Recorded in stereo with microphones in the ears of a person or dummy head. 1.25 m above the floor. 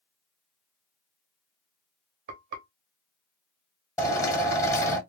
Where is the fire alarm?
I don't hear a fire alarm.